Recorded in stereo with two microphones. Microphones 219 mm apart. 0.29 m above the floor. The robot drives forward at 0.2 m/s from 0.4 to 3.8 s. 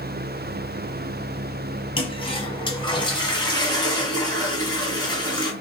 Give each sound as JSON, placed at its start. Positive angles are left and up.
{"t": 2.0, "sound": "a toilet flushing", "side_deg": 25, "distance_m": 1.3}